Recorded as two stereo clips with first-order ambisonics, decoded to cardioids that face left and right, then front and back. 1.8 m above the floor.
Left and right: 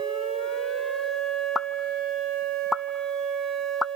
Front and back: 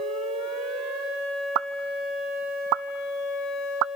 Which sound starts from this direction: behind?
A pop, at 1.6 s.